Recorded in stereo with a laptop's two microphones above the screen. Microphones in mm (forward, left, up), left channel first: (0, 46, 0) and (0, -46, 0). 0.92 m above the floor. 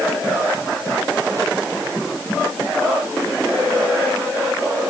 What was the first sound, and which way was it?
Only background noise.